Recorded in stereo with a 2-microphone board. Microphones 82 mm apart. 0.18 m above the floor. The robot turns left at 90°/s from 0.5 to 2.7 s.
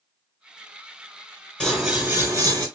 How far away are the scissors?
About 2.5 m.